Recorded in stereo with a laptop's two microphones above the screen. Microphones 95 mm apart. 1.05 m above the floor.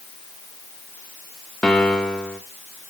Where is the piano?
10° left (ahead or behind), 1.4 m.